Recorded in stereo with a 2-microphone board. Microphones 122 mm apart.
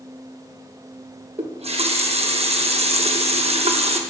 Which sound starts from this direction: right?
A running tap, at 1.4 s.